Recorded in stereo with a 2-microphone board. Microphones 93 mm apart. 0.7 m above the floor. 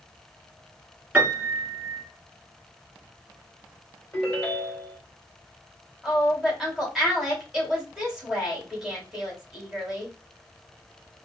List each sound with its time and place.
1.1 s a piano: 15° right (ahead or behind), 2.5 m
4.1 s a ringtone: 15° left (ahead or behind), 1.9 m
6.0 s a woman speaking: 5° right (ahead or behind), 2.5 m